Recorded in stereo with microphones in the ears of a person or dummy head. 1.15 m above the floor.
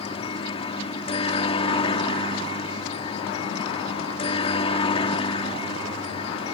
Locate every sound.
0.0 s a helicopter: 35° left (ahead or behind)